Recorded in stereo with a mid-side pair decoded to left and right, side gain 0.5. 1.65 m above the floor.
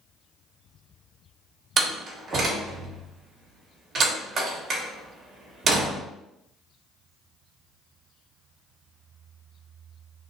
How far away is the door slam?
About 1.4 m.